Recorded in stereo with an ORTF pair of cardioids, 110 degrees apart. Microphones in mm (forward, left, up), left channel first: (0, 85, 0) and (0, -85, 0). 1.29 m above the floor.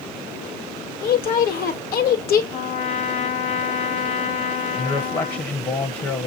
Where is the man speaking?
30° left, 0.9 m.